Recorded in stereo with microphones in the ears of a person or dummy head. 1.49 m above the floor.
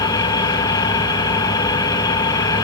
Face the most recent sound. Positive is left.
turn(degrees=20)  # may be behind; listen again after turning